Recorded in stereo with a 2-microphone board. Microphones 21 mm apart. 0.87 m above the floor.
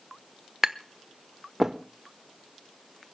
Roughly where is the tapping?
Right.